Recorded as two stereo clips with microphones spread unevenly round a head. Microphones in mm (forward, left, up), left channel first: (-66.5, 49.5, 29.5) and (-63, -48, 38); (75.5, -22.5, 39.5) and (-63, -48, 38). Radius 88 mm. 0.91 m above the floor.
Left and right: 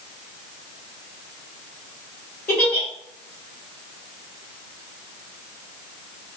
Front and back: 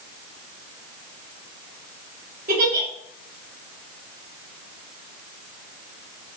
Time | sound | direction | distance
2.5 | a giggle | 160° left | 2 m